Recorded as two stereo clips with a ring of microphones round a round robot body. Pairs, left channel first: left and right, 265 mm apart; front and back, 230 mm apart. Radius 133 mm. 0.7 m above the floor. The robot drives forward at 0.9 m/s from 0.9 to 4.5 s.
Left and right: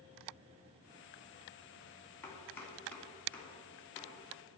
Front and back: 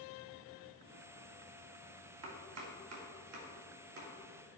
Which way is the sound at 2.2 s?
170° left.